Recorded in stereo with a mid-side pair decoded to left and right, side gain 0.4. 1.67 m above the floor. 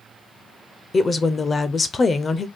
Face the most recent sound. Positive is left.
turn(degrees=40)